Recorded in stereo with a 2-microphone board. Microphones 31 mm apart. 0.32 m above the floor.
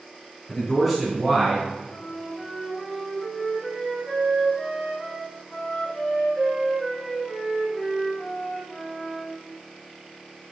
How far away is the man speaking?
About 2.5 m.